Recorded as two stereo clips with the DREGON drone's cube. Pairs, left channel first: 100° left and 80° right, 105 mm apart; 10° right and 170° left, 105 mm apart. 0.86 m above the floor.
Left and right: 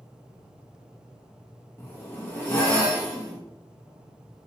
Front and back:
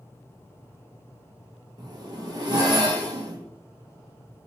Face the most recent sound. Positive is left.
turn(degrees=155)